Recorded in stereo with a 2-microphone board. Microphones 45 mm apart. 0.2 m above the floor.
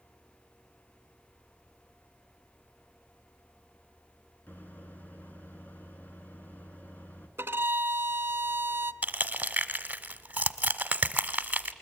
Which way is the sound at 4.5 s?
40° left (ahead or behind).